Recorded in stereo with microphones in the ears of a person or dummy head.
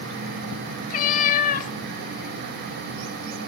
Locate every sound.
0.9 s a cat meowing: 50° left (ahead or behind), 1.2 m